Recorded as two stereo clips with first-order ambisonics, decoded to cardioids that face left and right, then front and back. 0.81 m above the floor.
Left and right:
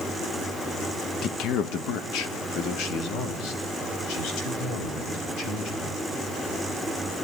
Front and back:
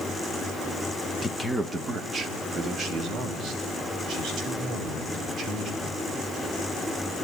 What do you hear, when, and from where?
1.2 s a man speaking: 65° left, 0.9 m; by 6.0 s 115° left, 6.5 m